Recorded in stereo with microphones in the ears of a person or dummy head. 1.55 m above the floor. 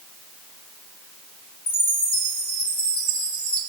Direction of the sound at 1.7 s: 5° left (ahead or behind).